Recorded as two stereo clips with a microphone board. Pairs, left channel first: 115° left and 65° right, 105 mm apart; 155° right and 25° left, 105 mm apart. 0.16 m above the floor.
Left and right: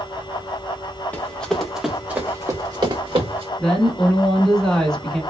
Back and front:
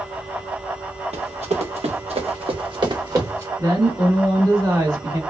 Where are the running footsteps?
40° left, 1.0 m; by 3.5 s 40° right, 1.0 m.